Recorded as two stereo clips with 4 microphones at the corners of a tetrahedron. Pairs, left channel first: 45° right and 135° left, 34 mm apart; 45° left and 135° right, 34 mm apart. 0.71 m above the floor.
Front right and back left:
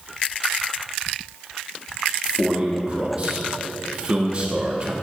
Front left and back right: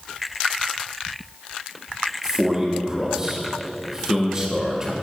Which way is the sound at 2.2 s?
165° left.